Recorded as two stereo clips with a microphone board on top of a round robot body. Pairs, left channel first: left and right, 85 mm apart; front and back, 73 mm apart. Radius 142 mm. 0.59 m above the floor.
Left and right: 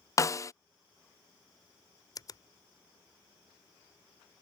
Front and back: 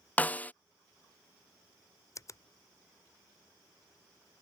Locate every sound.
0.2 s a snare drum: 60° left
2.1 s a finger snap: 45° left